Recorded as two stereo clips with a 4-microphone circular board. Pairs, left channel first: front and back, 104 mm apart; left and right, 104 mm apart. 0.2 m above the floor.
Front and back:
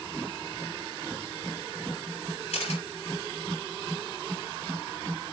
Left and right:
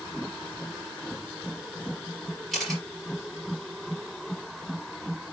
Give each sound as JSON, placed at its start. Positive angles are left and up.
{"t": 2.5, "sound": "a camera shutter", "azimuth_deg": 0, "distance_m": 4.5}